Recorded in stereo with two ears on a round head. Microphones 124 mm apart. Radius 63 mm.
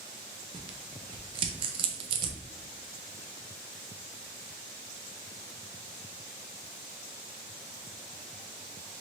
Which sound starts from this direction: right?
Tearing paper, at 0.5 s.